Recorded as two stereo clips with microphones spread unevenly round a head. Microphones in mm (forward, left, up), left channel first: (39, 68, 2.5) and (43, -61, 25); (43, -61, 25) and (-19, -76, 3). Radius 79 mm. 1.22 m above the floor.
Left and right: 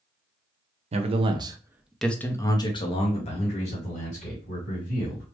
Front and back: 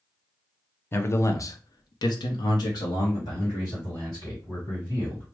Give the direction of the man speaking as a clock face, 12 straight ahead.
2 o'clock.